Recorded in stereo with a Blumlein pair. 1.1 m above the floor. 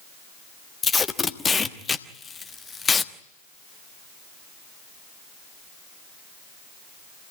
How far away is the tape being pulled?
About 1.2 m.